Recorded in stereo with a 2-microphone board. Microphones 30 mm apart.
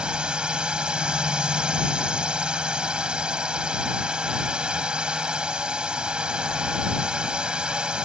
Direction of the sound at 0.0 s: 30° right (ahead or behind).